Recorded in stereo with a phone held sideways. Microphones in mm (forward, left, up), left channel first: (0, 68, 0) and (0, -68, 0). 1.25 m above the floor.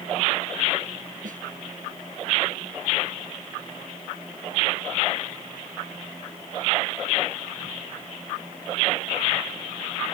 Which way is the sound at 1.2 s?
70° right (ahead or behind).